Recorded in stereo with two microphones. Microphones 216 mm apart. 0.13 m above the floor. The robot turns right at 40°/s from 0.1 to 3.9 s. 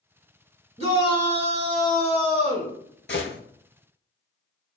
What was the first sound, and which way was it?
A shout, 120° right.